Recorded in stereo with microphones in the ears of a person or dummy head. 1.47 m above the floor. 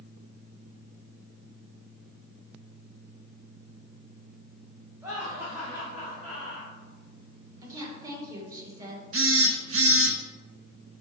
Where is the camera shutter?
I don't hear a camera shutter.